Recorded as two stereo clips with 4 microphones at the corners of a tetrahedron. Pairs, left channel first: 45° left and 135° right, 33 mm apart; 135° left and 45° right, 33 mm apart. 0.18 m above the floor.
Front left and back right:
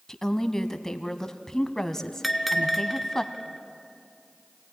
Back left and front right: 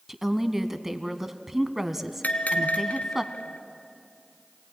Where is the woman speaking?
15° left, 1.1 m.